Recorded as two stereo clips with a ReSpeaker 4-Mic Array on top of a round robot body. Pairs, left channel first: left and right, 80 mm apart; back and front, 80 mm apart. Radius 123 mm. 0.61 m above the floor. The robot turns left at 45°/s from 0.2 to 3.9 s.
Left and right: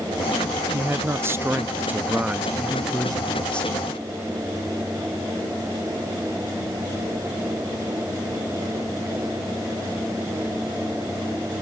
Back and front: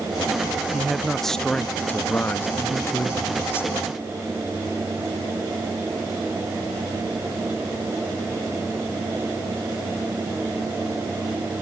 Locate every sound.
0.7 s a man speaking: 75° right, 1.2 m; by 3.7 s 150° left, 1.2 m